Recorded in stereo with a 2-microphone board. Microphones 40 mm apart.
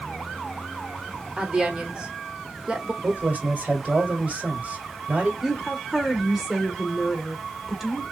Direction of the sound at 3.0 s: 40° right (ahead or behind).